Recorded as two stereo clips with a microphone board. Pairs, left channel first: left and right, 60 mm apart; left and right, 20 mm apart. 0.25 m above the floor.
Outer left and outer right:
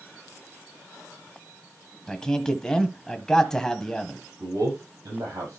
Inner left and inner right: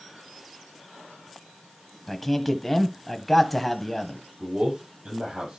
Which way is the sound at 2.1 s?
10° left (ahead or behind).